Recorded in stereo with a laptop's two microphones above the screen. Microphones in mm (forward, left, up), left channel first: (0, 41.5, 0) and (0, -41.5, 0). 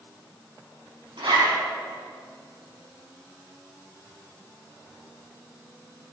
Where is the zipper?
85° right, 5 m.